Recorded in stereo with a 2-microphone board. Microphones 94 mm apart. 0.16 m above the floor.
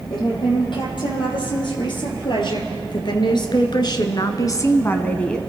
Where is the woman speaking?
55° left (ahead or behind), 5 m; by 5.4 s 10° left (ahead or behind), 1.1 m.